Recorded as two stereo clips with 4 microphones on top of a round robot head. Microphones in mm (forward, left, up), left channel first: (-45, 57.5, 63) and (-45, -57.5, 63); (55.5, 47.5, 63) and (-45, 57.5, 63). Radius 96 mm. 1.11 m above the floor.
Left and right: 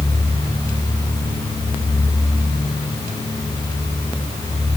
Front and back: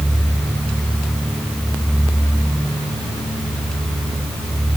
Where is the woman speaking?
No woman speaking in this recording.